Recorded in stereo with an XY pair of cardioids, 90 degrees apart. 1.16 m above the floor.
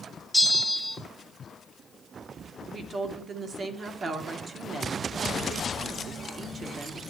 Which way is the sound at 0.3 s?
5° right.